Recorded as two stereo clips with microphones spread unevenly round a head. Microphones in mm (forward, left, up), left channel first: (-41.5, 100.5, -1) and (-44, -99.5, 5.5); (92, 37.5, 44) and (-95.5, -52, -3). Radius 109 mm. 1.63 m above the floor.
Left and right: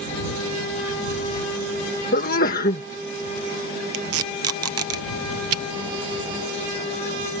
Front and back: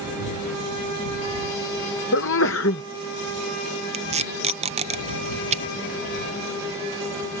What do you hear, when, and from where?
2.1 s a sneeze: 40° left
3.9 s tape being pulled: 95° right